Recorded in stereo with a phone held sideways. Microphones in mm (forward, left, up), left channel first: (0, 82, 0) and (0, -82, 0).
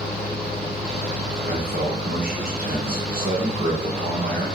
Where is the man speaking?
65° right (ahead or behind), 1.0 m.